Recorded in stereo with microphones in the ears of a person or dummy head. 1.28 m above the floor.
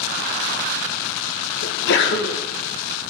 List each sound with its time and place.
1.6 s a sneeze: 65° left (ahead or behind), 1.4 m